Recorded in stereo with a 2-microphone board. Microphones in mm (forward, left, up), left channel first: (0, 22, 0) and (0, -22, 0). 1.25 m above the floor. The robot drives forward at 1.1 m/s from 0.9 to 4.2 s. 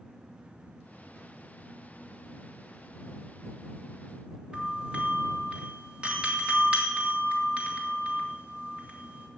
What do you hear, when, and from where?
4.5 s a doorbell: 25° right (ahead or behind), 3 m